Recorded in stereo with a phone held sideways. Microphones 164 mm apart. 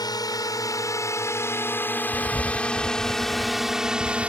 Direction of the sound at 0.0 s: 25° left (ahead or behind).